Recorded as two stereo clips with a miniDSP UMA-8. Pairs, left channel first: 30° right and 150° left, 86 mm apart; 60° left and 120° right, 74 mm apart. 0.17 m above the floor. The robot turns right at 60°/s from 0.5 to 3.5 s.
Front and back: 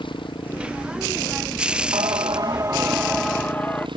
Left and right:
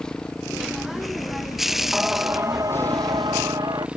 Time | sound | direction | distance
0.0 | a motorcycle | 20° right | ?
1.9 | singing | 160° left | ?